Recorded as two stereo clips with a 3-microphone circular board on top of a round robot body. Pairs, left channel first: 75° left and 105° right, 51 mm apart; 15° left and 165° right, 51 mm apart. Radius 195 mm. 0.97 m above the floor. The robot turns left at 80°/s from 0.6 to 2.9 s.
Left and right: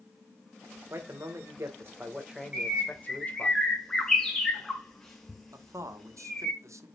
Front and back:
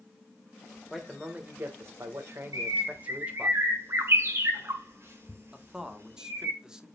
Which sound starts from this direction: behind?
A bird, at 2.5 s.